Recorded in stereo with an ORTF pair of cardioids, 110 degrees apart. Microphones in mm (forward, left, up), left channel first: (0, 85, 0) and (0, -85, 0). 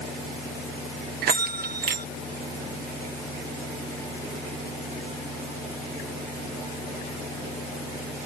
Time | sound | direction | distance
1.2 | a bell | 65° right | ?